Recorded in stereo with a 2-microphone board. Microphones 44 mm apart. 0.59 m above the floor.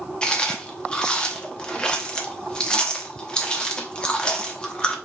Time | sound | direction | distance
0.2 | chewing | 20° left (ahead or behind) | 1.0 m